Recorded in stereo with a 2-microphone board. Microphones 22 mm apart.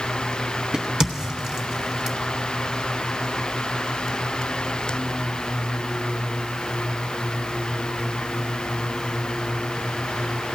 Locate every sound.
0.7 s a crack: 25° right (ahead or behind), 0.8 m